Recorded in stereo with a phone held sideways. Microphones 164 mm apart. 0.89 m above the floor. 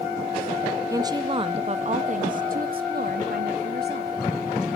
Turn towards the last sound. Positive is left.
turn(degrees=-70)  # may be behind; listen again after turning